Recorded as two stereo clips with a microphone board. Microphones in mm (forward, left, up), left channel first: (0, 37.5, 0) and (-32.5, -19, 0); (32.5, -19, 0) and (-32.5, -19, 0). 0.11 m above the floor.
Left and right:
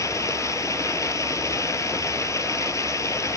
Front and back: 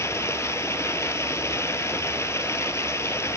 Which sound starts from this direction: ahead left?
Running water, at 0.0 s.